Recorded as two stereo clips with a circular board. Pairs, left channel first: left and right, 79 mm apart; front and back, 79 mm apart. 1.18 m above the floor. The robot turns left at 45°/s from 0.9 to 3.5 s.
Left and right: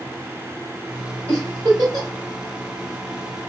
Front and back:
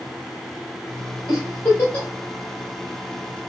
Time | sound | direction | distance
1.3 | a giggle | 40° right | 1.8 m